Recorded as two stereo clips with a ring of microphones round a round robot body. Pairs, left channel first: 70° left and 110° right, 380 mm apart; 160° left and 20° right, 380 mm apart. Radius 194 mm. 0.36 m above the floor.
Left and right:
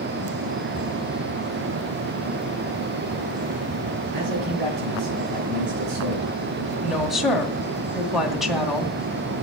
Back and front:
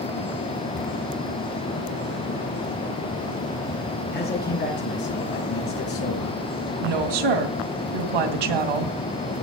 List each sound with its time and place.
4.1 s a man speaking: 135° right, 4.5 m; by 6.4 s 150° right, 4 m
6.8 s a woman speaking: 25° right, 2.5 m